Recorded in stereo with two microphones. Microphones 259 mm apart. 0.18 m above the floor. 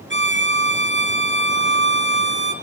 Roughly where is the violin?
Right.